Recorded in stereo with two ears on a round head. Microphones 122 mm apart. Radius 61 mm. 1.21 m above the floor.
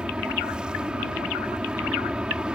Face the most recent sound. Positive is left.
turn(degrees=-5)  # may be behind; listen again after turning